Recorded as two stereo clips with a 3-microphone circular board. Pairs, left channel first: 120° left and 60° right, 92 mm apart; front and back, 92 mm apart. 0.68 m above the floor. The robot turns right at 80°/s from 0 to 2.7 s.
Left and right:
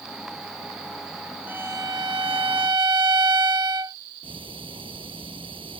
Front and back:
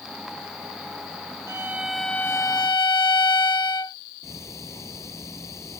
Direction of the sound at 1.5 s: 130° right.